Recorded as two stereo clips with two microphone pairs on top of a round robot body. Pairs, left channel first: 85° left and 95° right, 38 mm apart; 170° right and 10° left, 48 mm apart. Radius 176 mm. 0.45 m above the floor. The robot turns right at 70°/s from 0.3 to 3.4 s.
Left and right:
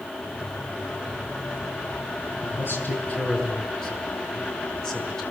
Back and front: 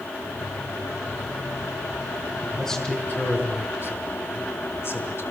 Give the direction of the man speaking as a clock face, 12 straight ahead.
9 o'clock.